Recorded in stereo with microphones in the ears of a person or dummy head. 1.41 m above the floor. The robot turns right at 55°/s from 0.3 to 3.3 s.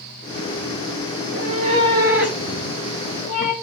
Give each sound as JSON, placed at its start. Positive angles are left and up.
{"t": 1.2, "sound": "a cat meowing", "azimuth_deg": -65, "distance_m": 2.5}